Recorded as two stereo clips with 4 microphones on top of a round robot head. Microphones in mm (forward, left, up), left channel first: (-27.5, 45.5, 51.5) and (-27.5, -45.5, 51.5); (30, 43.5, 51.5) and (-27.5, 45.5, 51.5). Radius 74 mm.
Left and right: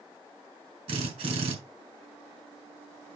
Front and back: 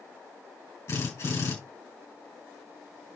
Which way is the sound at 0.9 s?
60° right.